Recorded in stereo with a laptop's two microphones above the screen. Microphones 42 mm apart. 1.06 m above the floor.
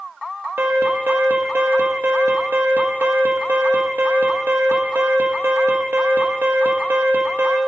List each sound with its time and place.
0.6 s an alarm: 60° right (ahead or behind), 1.1 m